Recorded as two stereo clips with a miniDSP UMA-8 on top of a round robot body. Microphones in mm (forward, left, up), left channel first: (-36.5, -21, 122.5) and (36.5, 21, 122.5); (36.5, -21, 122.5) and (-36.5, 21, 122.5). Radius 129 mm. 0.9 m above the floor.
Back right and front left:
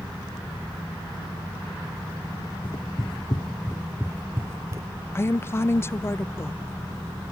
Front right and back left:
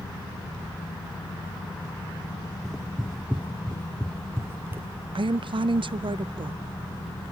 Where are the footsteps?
120° right, 1.4 m; by 4.9 s 85° left, 1.6 m.